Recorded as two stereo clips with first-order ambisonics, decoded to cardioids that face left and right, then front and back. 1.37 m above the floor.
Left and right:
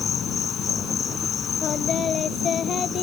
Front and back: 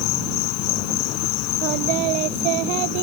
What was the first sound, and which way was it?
An insect, 25° left.